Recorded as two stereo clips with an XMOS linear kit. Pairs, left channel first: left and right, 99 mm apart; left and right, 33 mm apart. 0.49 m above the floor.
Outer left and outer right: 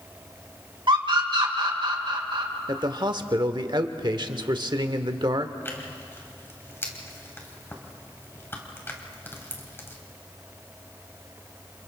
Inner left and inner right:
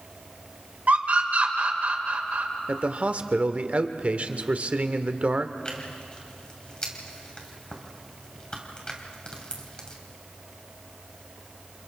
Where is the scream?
55° right (ahead or behind), 2 m.